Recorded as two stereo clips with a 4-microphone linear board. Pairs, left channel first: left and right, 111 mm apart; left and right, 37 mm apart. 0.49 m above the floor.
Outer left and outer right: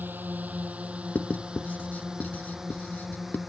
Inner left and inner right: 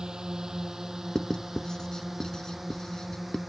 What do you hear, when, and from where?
0.0 s a drone: 15° right (ahead or behind); by 3.5 s centre (ahead or behind)
1.1 s writing: 15° left (ahead or behind)